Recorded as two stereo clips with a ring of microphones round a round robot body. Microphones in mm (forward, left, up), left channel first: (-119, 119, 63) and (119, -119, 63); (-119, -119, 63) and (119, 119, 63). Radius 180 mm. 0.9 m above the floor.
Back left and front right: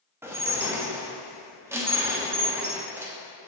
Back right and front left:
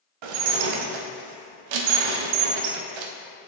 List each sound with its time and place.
0.2 s dishes clattering: 40° left, 0.6 m